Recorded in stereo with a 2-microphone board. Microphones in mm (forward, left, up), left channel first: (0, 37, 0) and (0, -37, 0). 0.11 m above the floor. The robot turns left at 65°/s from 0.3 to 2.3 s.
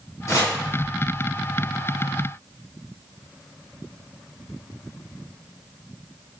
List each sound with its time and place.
0.3 s chopping: 35° left (ahead or behind), 1.4 m; by 0.6 s 45° left (ahead or behind), 1.4 m